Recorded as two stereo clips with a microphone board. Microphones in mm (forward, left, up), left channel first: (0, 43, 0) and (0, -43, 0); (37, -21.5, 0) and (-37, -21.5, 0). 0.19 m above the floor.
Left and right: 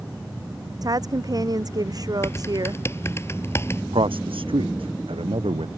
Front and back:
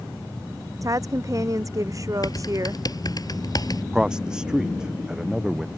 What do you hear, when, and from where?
0.8 s a woman speaking: 135° right
2.2 s typing on a keyboard: 30° left
3.9 s a man speaking: 100° right